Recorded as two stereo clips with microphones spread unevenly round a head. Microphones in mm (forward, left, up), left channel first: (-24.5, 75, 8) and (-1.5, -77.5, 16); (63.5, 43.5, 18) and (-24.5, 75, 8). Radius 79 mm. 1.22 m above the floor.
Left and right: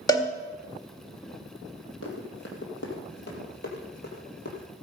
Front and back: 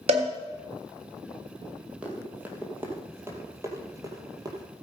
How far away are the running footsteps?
About 2.5 m.